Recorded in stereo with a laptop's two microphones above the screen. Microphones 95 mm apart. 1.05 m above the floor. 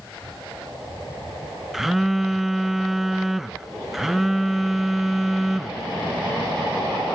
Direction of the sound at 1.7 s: Centre (ahead or behind).